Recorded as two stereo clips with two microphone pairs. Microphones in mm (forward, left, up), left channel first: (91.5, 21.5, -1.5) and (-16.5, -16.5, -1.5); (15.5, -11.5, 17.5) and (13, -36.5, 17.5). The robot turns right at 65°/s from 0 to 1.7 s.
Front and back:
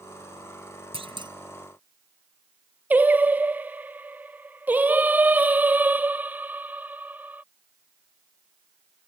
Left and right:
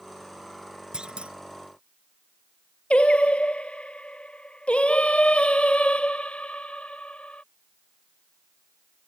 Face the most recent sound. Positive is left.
turn(degrees=125)